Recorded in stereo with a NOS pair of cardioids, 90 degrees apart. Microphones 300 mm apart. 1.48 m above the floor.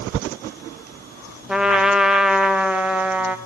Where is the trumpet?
5° right, 0.9 m.